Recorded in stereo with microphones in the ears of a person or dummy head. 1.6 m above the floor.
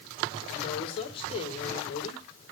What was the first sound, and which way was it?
A woman speaking, 30° left (ahead or behind).